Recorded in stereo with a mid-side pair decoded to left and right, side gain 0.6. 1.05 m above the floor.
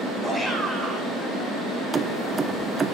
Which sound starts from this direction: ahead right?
Keys jangling, at 1.9 s.